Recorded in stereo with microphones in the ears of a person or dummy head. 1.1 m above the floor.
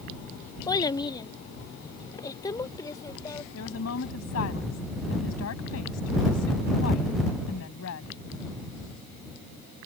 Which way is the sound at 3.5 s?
85° left.